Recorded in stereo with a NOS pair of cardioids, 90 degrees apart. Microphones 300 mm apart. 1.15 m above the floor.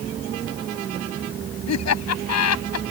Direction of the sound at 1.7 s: 60° left.